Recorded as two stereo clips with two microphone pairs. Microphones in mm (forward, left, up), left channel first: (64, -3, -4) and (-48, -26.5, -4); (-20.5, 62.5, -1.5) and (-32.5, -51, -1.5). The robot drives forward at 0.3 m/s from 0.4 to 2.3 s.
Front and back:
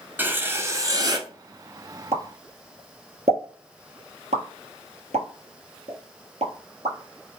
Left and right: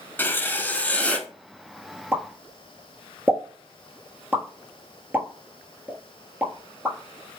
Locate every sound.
0.2 s writing: 140° left, 0.5 m; by 1.3 s 160° left, 0.7 m
2.1 s a pop: 170° right, 0.8 m